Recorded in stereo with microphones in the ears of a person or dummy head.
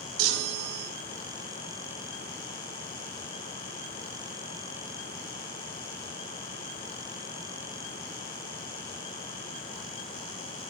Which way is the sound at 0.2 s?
80° right.